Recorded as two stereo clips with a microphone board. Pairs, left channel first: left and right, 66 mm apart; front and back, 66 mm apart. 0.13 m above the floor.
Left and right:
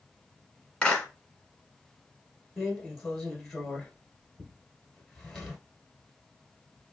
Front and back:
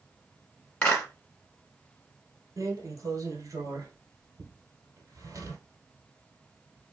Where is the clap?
35° left, 1.4 m.